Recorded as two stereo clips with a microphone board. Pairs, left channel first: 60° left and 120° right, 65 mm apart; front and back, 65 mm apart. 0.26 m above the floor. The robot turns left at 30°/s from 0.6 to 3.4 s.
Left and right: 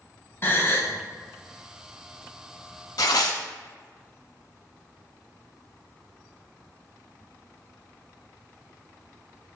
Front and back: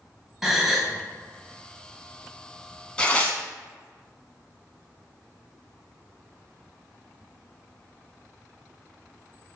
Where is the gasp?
100° left, 0.8 m; by 0.9 s 90° left, 0.8 m.